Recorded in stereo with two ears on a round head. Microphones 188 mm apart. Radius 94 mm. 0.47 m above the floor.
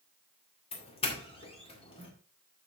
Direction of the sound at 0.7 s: 30° left (ahead or behind).